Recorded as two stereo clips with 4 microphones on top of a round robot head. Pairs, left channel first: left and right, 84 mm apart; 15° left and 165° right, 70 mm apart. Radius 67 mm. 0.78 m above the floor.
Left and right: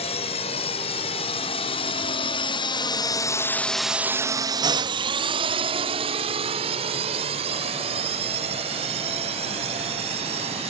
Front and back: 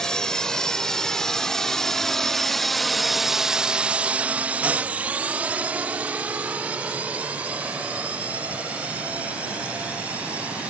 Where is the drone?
95° left; by 10.7 s 90° right.